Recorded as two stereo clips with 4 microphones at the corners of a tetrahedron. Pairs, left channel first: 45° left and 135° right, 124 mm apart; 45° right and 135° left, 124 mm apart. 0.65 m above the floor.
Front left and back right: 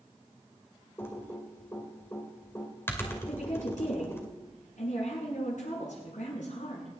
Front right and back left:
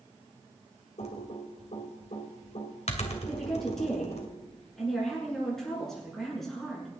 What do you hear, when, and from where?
1.0 s typing on a keyboard: 25° right, 2.5 m
3.3 s a woman speaking: 40° left, 8.5 m